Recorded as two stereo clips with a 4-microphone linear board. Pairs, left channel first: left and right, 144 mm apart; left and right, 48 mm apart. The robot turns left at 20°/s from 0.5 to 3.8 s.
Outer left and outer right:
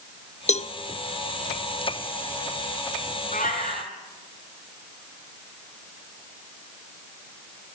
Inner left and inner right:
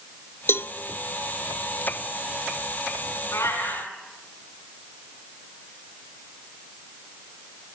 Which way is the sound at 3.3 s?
65° left (ahead or behind).